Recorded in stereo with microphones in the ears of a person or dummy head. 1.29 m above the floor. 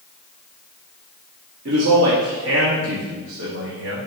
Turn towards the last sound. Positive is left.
turn(degrees=-70)  # may be behind; listen again after turning